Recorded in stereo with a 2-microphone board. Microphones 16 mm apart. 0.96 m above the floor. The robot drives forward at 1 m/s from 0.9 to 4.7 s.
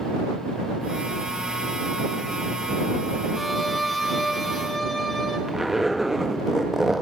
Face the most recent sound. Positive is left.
turn(degrees=-20)  # may be behind; listen again after turning